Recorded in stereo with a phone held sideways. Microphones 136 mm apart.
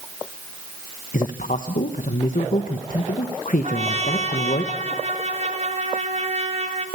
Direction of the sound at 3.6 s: 55° right (ahead or behind).